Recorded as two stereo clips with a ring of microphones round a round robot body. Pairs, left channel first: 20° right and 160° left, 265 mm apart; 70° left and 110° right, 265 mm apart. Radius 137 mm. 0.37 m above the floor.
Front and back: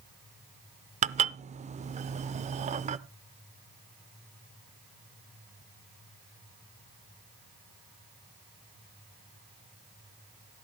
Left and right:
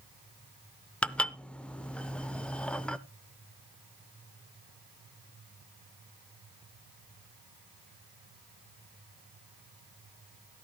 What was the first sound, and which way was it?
Dishes clattering, 150° left.